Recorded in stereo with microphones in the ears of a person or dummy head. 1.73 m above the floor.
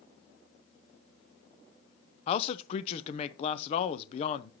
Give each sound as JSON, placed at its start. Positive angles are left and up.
{"t": 2.3, "sound": "a man speaking", "side_deg": 40, "distance_m": 0.6}